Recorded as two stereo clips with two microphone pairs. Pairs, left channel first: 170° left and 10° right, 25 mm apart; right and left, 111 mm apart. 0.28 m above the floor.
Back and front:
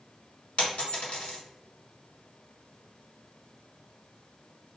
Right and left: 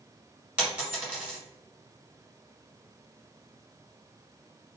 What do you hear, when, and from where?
0.6 s a dropped coin: 170° left, 1.5 m